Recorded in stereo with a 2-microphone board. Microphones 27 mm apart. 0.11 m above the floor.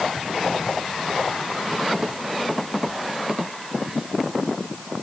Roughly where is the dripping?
I don't hear dripping.